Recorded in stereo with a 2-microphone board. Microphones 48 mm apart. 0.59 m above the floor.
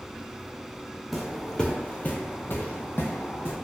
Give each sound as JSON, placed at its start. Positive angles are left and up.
{"t": 1.1, "sound": "footsteps", "side_deg": 0, "distance_m": 0.7}